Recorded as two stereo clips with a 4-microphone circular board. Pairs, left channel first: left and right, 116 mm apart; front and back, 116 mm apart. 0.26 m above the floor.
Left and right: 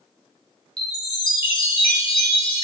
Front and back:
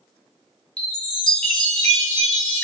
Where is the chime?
80° left, 1.2 m.